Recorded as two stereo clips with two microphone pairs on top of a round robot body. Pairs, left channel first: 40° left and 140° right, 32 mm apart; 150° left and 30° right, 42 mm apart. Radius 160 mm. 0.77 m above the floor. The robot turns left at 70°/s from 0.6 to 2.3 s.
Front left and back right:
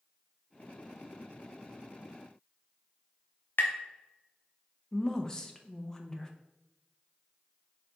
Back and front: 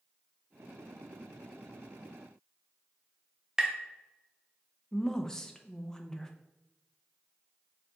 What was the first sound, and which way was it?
Tapping, 45° left.